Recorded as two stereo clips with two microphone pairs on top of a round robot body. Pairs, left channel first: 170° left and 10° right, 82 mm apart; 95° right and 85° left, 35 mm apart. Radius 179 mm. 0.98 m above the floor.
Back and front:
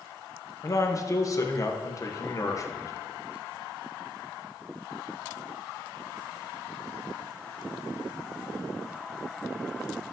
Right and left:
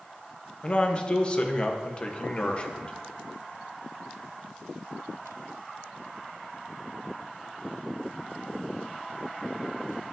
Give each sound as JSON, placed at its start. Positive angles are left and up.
{"t": 0.6, "sound": "a man speaking", "azimuth_deg": -150, "distance_m": 1.4}